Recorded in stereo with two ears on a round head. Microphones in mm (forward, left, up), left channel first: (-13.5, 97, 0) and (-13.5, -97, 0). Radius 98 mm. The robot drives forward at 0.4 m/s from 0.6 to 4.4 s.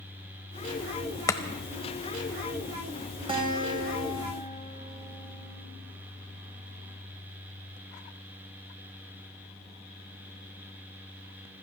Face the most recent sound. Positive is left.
turn(degrees=-20)  # may be behind; listen again after turning